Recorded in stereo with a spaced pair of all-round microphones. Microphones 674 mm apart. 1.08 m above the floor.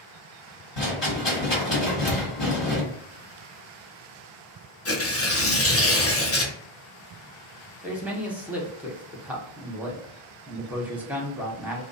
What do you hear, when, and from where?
0.8 s a rattle: 50° left (ahead or behind), 1.5 m
2.1 s a thud: 15° left (ahead or behind), 0.6 m
4.8 s tearing paper: 25° left (ahead or behind), 0.5 m
7.8 s a man speaking: centre (ahead or behind), 0.7 m